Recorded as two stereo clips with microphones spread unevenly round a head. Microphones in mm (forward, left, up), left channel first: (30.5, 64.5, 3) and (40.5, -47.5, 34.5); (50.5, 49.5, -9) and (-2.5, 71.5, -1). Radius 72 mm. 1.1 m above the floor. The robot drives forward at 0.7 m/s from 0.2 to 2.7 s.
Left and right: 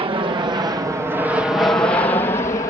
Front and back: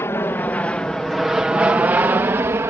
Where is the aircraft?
50° right; by 2.7 s 130° left.